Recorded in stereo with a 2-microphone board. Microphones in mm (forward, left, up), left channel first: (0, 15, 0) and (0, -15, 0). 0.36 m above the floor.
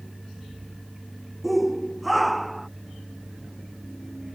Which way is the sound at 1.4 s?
Centre (ahead or behind).